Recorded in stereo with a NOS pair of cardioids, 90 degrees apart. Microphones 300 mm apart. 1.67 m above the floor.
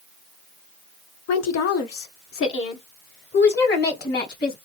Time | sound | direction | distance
1.3 | a woman speaking | 70° left | 1.2 m